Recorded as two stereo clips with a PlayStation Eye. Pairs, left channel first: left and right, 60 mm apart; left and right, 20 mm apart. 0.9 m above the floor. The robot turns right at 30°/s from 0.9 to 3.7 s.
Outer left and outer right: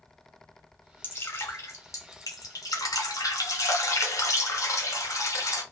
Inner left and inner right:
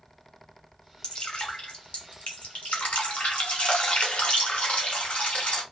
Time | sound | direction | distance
1.0 | dripping | 35° left | 2 m